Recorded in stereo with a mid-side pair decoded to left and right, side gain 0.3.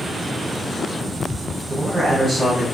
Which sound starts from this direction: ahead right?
A man speaking, at 1.7 s.